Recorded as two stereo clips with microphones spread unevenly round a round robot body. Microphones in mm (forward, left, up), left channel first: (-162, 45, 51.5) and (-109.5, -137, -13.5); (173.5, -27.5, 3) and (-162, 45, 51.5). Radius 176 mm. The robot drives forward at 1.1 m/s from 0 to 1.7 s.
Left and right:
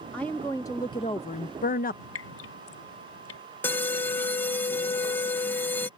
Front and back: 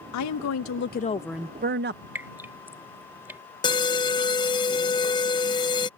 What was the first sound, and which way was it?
A woman speaking, 10° left.